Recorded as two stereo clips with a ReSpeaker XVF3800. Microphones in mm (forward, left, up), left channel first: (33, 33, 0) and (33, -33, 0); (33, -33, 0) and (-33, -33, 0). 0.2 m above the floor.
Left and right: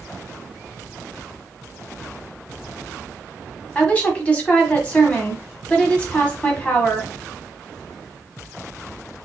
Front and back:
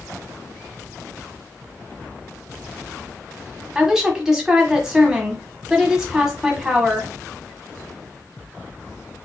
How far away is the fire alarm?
No fire alarm in this recording.